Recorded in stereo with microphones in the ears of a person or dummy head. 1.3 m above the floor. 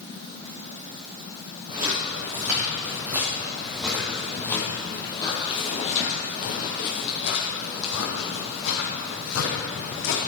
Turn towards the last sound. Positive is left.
turn(degrees=75)  # may be behind; listen again after turning